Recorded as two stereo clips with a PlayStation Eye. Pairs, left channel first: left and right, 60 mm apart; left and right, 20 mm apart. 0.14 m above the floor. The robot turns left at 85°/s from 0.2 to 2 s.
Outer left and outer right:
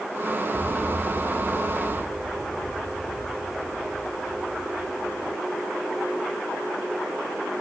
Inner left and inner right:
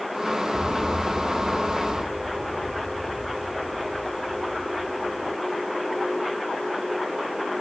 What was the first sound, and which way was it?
An explosion, 115° left.